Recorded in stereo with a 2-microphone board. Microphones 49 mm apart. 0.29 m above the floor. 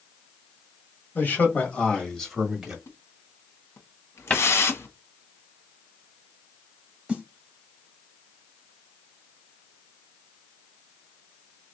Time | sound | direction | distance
1.1 | a man speaking | 45° left (ahead or behind) | 1.6 m
2.9 | a splash | 65° left (ahead or behind) | 1.0 m
4.3 | a cupboard door | 25° left (ahead or behind) | 0.7 m
7.1 | a snare drum | 20° right (ahead or behind) | 1.2 m